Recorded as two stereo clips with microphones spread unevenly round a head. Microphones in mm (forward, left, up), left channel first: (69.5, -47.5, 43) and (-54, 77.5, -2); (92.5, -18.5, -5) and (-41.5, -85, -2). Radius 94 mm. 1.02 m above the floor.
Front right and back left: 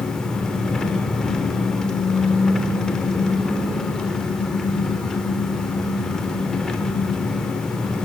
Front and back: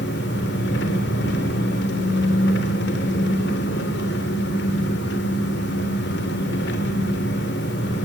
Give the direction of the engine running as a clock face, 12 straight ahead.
11 o'clock.